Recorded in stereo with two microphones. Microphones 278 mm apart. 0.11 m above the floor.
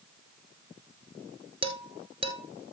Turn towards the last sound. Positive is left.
turn(degrees=-20)  # may be behind; listen again after turning